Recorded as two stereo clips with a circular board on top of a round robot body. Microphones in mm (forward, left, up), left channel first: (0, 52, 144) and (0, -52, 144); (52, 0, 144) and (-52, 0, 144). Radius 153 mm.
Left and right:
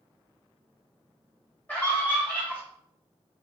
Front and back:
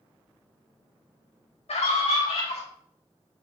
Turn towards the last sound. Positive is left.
turn(degrees=20)